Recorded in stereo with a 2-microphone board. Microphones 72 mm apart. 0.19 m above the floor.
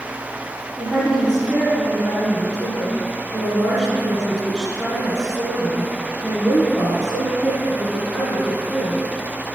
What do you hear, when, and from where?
0.8 s a woman speaking: 5° left (ahead or behind), 1.9 m